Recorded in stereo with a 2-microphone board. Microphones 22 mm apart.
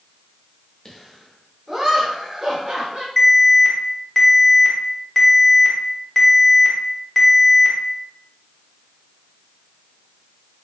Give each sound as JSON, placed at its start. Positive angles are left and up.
{"t": 0.8, "sound": "laughter", "side_deg": 15, "distance_m": 0.8}
{"t": 3.2, "sound": "an alarm", "side_deg": 10, "distance_m": 0.7}